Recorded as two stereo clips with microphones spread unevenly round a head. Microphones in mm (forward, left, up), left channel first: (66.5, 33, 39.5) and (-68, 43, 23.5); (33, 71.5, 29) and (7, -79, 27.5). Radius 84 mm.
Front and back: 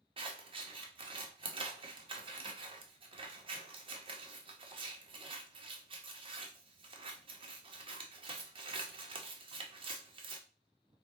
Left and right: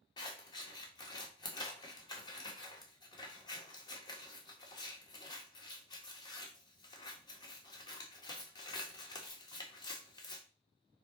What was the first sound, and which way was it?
Scissors, 140° left.